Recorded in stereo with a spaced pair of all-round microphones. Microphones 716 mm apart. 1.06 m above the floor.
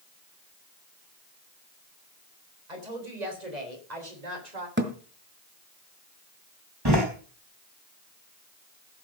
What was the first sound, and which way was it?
A woman speaking, 85° right.